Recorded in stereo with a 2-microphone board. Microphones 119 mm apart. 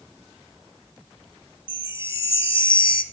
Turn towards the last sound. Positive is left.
turn(degrees=50)  # may be behind; listen again after turning